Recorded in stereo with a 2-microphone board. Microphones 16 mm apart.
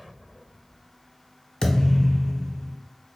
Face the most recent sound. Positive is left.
turn(degrees=55)  # may be behind; listen again after turning